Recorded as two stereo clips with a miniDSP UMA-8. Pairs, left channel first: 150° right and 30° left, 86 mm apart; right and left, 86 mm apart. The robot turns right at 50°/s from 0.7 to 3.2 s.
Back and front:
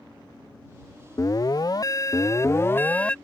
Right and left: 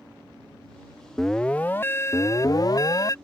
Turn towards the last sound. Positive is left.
turn(degrees=-75)